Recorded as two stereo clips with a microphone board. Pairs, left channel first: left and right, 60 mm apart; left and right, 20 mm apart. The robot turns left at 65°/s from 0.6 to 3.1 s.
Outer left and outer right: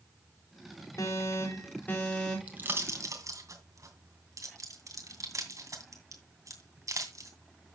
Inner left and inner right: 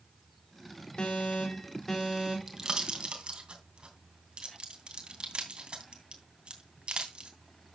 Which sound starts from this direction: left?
An alarm, at 1.0 s.